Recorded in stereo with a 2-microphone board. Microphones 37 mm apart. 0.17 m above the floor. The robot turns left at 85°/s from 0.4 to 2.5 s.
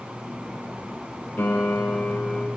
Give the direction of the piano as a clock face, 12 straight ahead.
9 o'clock.